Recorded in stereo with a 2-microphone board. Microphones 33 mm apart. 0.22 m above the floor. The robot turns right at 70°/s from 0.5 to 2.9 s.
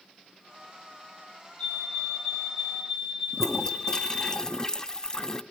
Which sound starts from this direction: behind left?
A fire alarm, at 1.6 s.